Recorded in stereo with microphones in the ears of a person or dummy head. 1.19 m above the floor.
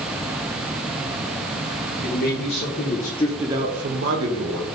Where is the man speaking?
65° left (ahead or behind), 1.8 m; by 4.6 s 70° right (ahead or behind), 1.6 m.